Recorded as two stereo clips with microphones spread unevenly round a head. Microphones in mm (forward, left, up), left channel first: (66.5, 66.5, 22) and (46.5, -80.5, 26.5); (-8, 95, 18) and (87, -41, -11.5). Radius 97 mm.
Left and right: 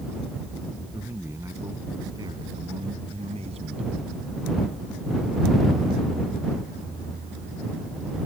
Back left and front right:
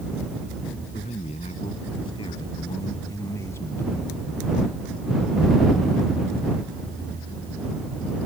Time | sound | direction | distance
0.9 | a man speaking | 175° right | ?